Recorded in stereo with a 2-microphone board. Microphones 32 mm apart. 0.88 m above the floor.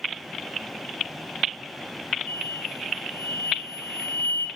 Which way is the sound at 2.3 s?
55° left (ahead or behind).